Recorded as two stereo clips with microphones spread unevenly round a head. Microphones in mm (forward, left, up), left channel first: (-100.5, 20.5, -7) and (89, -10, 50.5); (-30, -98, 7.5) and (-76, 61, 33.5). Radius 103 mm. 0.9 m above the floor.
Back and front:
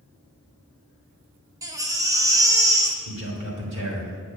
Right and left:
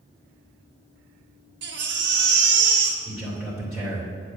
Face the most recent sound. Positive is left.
turn(degrees=20)